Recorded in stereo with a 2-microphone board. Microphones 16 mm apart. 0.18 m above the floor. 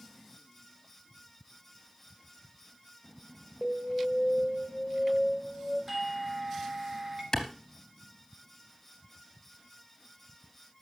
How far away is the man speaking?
I don't hear a man speaking.